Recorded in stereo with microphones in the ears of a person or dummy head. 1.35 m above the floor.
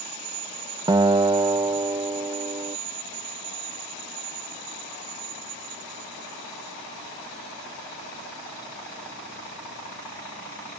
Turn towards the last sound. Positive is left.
turn(degrees=-20)  # may be behind; listen again after turning